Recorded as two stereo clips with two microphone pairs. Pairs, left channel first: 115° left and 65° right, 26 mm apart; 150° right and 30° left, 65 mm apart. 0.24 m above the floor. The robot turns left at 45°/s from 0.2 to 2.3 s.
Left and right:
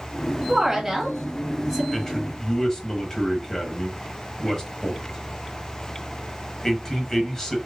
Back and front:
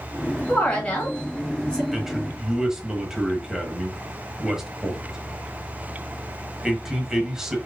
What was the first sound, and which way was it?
A woman speaking, 120° right.